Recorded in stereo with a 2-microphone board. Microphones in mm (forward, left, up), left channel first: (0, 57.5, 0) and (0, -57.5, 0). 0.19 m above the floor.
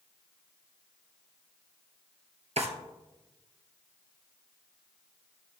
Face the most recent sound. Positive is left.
turn(degrees=-70)  # may be behind; listen again after turning